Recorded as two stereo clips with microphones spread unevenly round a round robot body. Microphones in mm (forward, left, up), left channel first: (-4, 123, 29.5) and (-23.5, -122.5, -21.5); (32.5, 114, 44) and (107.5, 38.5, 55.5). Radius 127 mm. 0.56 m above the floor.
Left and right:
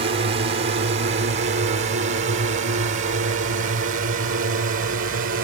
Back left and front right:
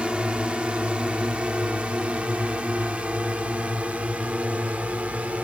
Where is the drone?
130° right; by 5.5 s 125° right.